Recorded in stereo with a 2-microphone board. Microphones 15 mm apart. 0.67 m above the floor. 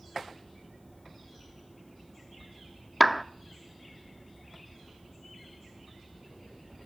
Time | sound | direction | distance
3.0 | a clap | 5° right (ahead or behind) | 0.6 m